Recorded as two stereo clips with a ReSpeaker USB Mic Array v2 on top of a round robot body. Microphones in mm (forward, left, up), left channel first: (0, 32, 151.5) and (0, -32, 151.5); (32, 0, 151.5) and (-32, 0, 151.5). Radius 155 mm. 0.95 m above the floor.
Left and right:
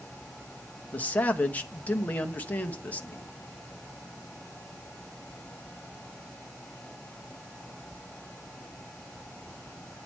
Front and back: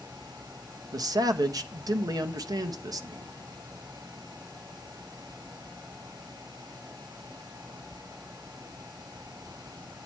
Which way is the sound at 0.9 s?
155° left.